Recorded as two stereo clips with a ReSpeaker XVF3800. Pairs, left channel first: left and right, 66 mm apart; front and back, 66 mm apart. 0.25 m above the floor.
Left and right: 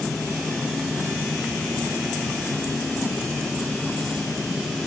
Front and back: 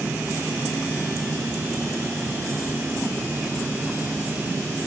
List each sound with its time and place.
Only background noise.